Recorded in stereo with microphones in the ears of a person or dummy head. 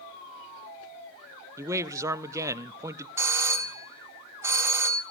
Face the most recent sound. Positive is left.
turn(degrees=-15)  # may be behind; listen again after turning